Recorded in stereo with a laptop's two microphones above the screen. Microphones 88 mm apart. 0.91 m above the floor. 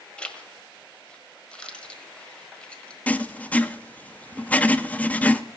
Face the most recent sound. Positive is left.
turn(degrees=15)  # may be behind; listen again after turning